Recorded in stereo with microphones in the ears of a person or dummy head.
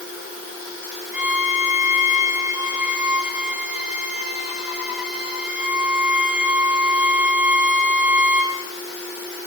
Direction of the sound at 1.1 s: 5° right (ahead or behind).